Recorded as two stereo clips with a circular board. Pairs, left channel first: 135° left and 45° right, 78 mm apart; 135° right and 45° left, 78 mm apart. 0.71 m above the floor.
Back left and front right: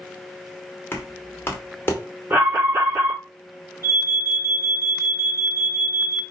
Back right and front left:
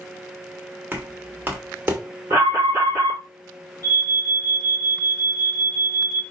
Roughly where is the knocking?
Left.